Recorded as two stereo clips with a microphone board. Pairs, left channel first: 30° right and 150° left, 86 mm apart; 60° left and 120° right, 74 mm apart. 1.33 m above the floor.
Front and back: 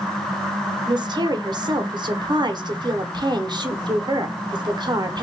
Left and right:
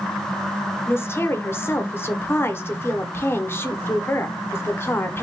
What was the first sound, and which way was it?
A woman speaking, 120° left.